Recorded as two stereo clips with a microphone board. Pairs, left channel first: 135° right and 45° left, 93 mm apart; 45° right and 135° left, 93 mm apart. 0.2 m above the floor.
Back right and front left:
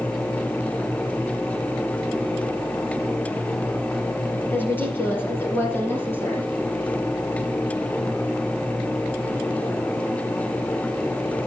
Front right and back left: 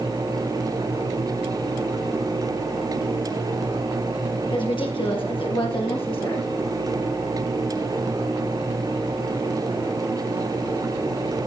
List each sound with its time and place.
4.5 s a woman speaking: 65° right, 3.5 m; by 6.5 s 70° right, 6.5 m